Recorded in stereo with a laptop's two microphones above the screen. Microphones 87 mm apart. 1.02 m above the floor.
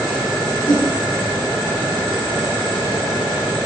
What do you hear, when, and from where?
0.7 s a whoosh: 85° left, 5 m